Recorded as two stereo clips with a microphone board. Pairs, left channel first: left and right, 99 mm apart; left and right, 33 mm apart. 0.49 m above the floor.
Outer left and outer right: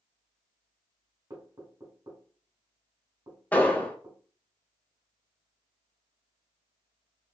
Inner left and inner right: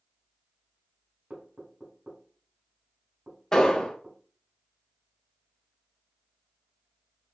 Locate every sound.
1.3 s knocking: 45° right (ahead or behind), 1.9 m
3.5 s an explosion: 15° left (ahead or behind), 0.7 m